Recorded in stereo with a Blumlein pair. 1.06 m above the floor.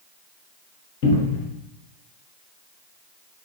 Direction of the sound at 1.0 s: 45° left.